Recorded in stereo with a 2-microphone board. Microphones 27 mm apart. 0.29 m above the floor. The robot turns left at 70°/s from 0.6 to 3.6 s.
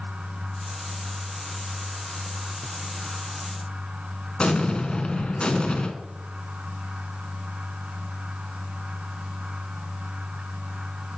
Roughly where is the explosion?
Left.